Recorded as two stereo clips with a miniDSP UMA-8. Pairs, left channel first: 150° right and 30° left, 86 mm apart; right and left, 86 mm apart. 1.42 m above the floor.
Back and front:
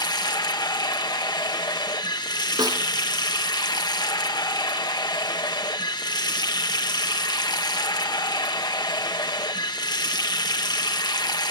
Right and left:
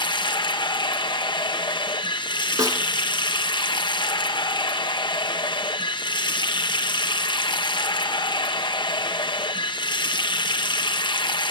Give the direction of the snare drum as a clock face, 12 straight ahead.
10 o'clock.